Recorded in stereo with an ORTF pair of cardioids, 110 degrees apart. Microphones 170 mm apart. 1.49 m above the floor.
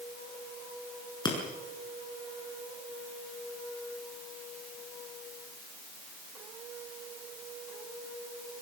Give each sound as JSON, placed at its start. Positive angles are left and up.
{"t": 1.2, "sound": "breaking glass", "azimuth_deg": 25, "distance_m": 7.0}